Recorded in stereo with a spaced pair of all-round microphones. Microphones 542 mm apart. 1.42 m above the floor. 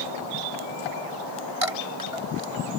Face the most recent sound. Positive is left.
turn(degrees=-80)